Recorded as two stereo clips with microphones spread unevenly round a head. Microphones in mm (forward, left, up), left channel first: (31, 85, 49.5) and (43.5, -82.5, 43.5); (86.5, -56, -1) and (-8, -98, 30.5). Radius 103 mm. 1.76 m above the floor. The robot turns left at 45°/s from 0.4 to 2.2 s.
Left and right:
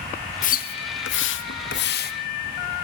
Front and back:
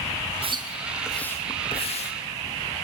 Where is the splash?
145° left, 1.0 m; by 2.1 s 65° left, 1.0 m.